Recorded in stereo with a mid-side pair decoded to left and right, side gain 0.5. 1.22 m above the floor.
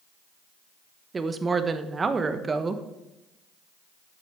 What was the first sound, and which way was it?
A woman speaking, 30° right.